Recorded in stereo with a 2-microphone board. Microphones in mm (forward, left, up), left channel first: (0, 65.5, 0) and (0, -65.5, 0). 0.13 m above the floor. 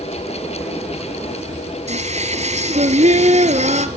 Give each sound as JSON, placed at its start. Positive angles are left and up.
{"t": 1.9, "sound": "singing", "side_deg": -60, "distance_m": 1.2}